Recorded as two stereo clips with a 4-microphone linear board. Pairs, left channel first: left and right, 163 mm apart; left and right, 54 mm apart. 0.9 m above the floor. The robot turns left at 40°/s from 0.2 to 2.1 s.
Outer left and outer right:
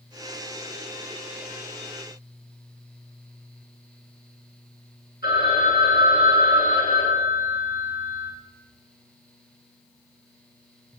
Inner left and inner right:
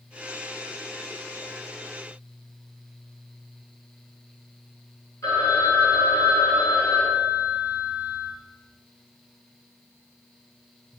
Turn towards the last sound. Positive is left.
turn(degrees=90)